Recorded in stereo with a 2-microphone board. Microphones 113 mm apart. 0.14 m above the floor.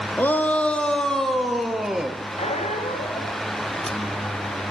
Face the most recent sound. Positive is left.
turn(degrees=75)  # may be behind; listen again after turning